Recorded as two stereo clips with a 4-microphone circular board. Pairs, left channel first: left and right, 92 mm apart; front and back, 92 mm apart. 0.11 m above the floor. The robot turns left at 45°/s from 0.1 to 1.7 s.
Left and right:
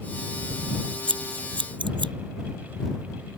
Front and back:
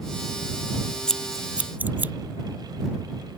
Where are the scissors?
80° right; by 2.1 s 110° right.